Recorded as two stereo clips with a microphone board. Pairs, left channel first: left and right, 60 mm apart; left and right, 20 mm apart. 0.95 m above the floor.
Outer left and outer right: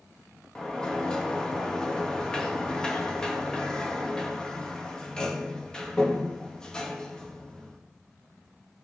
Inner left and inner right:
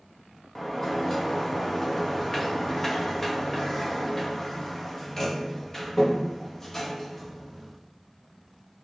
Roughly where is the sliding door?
Centre.